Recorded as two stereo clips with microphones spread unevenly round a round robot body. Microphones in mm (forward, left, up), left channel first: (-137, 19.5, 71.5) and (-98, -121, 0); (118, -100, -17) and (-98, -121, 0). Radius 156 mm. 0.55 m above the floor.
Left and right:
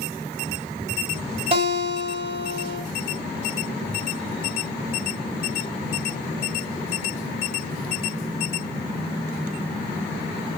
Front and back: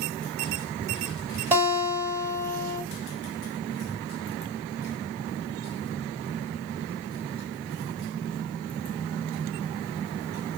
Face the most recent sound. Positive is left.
turn(degrees=-95)